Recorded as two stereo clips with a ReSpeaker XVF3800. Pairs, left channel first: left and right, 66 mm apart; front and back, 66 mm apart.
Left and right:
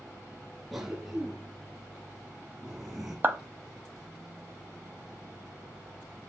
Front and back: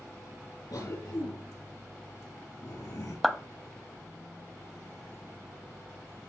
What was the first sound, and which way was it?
A cough, 5° right.